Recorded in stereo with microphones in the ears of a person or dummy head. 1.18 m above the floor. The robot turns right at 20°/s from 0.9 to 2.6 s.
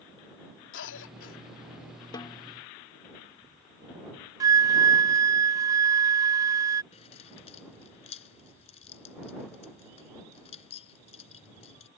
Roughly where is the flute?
Centre.